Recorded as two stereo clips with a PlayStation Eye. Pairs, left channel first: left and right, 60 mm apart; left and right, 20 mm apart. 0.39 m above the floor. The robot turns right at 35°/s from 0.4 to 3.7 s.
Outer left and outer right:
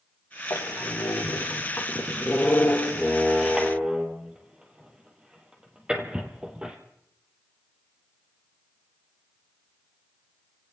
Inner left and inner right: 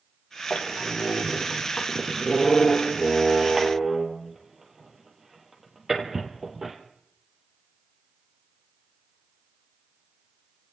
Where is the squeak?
80° left, 2 m; by 6.8 s 15° right (ahead or behind), 2 m.